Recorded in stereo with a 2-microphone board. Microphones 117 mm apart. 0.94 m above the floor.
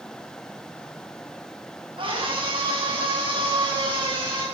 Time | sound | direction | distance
2.0 | a scream | 45° right (ahead or behind) | 9 m